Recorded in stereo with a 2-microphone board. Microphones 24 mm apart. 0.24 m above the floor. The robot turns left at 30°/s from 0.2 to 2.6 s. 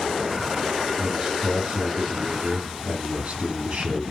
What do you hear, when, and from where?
1.0 s a man speaking: 35° right, 3.5 m; by 4.0 s 85° right, 3.5 m